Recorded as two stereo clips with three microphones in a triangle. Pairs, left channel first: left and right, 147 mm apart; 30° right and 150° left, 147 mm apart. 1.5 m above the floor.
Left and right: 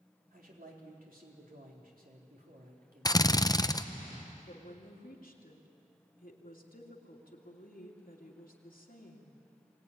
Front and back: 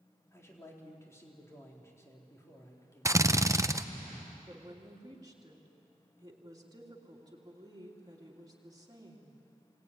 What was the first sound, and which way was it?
A man speaking, 100° right.